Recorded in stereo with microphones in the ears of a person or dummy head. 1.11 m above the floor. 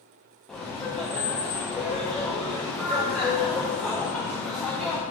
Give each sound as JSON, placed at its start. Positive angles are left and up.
{"t": 0.5, "sound": "laughter", "side_deg": 5, "distance_m": 0.6}